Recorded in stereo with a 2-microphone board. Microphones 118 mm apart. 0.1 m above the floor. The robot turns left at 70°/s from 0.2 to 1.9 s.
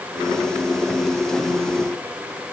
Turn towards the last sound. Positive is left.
No sound to turn to.